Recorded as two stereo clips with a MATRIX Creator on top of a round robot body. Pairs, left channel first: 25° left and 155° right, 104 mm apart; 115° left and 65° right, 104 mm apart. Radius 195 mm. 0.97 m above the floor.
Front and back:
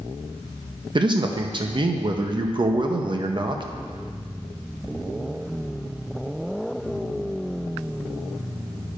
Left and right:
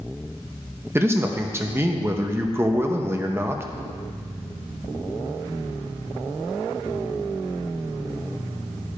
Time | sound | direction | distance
0.9 | a man speaking | 130° right | 0.8 m